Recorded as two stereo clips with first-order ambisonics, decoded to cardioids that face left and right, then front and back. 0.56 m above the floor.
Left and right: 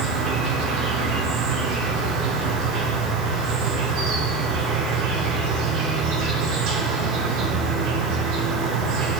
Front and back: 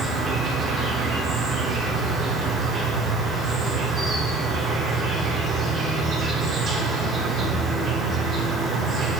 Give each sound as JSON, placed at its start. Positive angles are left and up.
{"t": 0.0, "sound": "an insect", "azimuth_deg": -115, "distance_m": 2.0}